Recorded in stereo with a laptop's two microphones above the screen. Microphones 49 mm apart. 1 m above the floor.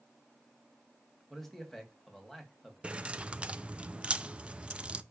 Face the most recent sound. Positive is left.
turn(degrees=-20)  # may be behind; listen again after turning